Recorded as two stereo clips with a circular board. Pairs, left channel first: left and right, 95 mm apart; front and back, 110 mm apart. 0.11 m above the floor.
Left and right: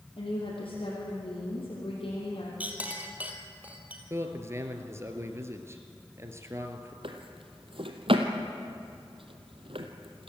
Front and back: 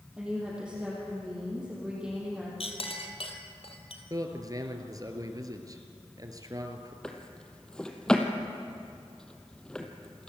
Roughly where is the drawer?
Right.